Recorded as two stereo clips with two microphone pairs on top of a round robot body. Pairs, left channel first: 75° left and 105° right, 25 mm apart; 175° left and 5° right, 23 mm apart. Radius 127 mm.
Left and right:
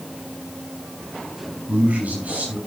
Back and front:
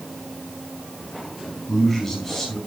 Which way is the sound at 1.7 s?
105° right.